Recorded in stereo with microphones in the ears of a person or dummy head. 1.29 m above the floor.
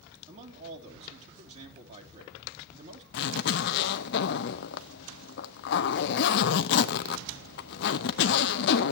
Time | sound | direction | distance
0.3 | a man speaking | 35° right (ahead or behind) | 3 m
3.1 | a zipper | 55° left (ahead or behind) | 0.7 m